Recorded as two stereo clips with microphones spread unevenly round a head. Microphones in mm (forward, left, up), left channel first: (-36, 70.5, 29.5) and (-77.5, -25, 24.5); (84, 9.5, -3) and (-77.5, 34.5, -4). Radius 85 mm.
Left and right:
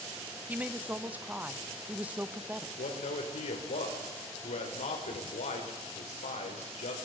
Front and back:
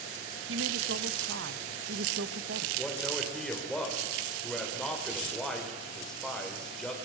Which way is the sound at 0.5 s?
175° left.